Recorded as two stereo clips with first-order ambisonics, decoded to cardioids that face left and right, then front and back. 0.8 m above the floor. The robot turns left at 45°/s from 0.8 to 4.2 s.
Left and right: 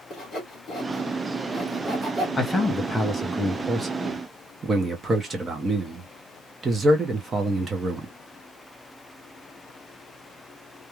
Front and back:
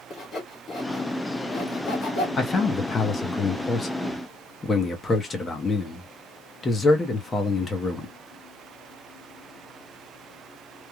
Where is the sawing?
40° left, 1.1 m; by 2.3 s 25° right, 1.1 m.